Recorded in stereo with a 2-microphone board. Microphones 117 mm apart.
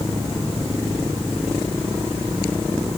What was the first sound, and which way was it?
Only background noise.